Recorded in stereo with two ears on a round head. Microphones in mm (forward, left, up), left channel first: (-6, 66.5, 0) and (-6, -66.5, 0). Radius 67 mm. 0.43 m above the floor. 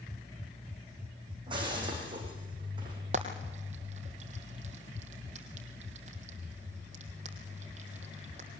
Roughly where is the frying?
Right.